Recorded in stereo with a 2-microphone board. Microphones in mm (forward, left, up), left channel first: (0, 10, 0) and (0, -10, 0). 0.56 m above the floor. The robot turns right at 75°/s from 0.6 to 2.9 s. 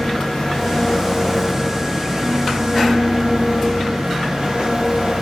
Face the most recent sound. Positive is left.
turn(degrees=-80)